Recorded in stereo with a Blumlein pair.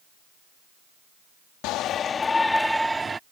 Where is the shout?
40° left; by 3.2 s 15° right.